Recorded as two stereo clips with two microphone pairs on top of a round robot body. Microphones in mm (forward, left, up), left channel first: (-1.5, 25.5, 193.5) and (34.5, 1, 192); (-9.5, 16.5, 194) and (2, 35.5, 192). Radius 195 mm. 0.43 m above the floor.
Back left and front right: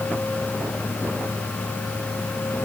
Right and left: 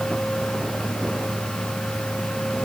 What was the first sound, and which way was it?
Only background noise.